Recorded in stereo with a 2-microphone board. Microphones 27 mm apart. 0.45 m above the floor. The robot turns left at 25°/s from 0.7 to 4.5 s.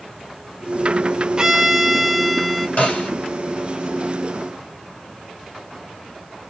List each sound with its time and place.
1.4 s a violin: 140° right, 0.7 m; by 2.7 s 175° right, 0.7 m
2.8 s a snare drum: 65° left (ahead or behind), 3 m; by 3.1 s 60° left (ahead or behind), 3 m